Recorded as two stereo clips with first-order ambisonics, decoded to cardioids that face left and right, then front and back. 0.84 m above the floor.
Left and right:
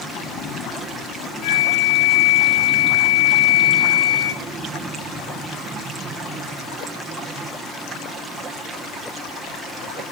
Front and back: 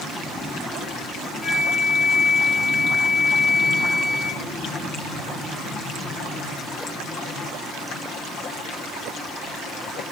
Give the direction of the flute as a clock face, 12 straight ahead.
9 o'clock.